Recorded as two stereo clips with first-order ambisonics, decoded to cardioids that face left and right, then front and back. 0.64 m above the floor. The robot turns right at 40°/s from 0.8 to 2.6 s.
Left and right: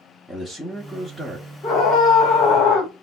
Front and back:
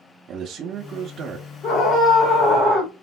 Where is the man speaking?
175° left, 0.6 m; by 1.5 s 155° right, 0.6 m.